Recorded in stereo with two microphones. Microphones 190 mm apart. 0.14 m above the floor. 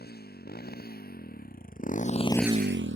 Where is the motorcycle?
55° left (ahead or behind); by 3.0 s 70° right (ahead or behind).